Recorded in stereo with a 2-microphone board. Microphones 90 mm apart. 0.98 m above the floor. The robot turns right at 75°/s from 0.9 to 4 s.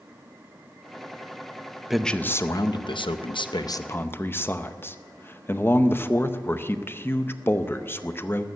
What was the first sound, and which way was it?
A man speaking, 5° right.